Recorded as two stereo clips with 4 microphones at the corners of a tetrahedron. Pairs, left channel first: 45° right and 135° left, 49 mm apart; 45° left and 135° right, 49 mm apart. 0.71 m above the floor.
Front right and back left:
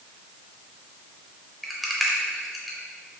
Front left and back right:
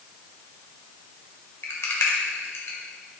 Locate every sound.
1.6 s a rattle: 45° left, 0.6 m